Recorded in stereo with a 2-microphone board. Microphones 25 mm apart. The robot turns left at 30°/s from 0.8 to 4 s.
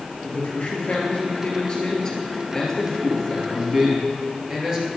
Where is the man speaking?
75° left, 2.5 m; by 4.9 s 25° right, 2.5 m.